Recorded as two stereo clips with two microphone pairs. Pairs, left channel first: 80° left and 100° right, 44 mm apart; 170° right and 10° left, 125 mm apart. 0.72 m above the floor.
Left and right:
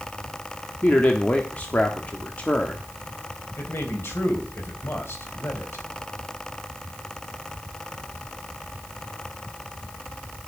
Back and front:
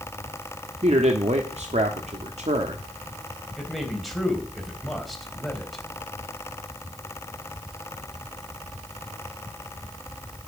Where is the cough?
I don't hear a cough.